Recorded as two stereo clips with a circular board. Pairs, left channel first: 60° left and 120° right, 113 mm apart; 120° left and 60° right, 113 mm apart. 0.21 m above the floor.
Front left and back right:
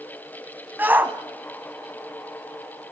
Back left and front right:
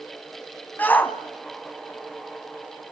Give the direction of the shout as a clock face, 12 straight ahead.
6 o'clock.